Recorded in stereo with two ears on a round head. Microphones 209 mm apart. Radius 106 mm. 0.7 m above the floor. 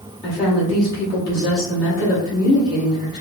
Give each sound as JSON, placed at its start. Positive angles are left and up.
{"t": 0.2, "sound": "a woman speaking", "side_deg": 35, "distance_m": 1.7}